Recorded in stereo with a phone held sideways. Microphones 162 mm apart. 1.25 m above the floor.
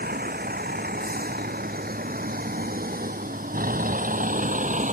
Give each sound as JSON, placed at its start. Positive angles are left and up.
{"t": 0.0, "sound": "a vehicle", "side_deg": -80}